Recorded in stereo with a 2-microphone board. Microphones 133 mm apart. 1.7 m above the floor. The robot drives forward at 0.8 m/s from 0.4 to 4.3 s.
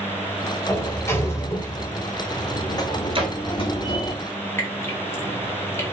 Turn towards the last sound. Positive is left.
turn(degrees=20)  # may be behind; listen again after turning